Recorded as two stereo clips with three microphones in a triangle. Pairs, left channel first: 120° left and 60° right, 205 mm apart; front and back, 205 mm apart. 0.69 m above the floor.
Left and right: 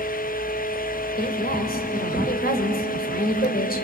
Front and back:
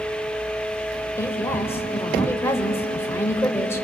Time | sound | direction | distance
1.2 | a woman speaking | 75° left | 3 m